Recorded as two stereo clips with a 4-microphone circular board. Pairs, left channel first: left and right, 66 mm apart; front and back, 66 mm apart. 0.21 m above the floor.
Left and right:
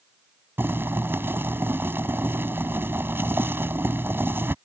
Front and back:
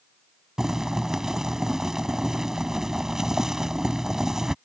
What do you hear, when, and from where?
0.6 s boiling: 105° right